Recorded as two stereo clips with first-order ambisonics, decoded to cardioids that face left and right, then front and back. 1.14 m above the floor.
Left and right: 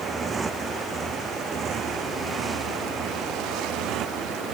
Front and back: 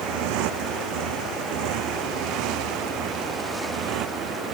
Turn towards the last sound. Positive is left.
turn(degrees=-135)